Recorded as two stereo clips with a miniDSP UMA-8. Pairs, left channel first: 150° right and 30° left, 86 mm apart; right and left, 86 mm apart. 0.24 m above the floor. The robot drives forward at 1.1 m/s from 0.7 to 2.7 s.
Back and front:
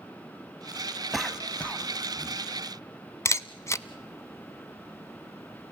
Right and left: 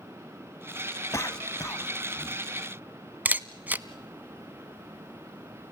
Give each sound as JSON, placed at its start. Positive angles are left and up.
{"t": 1.1, "sound": "a cough", "azimuth_deg": -55, "distance_m": 1.6}
{"t": 3.2, "sound": "a camera shutter", "azimuth_deg": 160, "distance_m": 0.6}